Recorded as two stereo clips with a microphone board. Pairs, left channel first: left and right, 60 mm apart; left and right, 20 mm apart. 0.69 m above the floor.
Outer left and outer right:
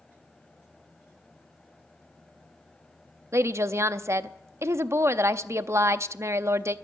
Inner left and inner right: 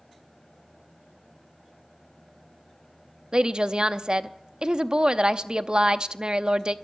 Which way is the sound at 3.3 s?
45° right (ahead or behind).